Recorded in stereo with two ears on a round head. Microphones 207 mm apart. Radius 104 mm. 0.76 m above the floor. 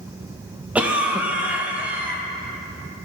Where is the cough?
5° right (ahead or behind), 0.6 m.